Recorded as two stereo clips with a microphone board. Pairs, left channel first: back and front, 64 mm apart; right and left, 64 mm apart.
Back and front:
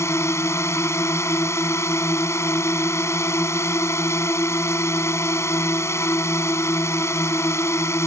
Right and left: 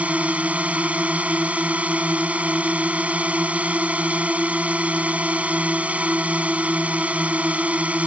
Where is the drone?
155° left.